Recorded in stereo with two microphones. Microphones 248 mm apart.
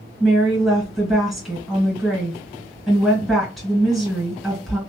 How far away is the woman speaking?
About 2 m.